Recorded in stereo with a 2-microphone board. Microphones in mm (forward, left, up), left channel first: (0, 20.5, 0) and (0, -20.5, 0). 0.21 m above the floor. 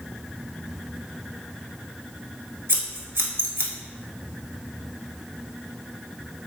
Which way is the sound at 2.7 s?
75° right (ahead or behind).